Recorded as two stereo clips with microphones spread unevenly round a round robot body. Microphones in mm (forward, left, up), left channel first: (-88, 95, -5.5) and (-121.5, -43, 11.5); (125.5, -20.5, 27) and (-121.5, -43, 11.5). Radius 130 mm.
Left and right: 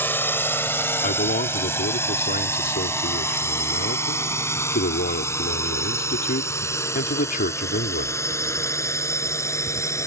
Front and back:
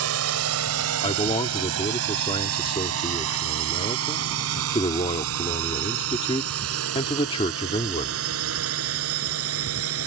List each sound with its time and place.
0.0 s a drone: 150° left; by 10.1 s 145° left
1.0 s a man speaking: 75° left